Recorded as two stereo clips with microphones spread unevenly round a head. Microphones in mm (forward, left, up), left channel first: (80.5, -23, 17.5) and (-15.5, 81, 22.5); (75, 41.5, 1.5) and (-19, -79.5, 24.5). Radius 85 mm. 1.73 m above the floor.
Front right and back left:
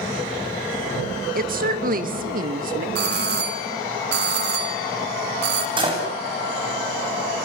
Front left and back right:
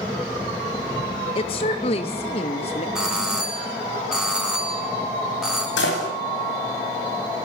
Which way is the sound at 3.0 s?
145° left.